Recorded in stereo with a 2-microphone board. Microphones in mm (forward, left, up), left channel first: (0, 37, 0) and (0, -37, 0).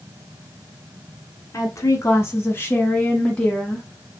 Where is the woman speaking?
45° left (ahead or behind), 1.5 m; by 4.2 s centre (ahead or behind), 1.2 m.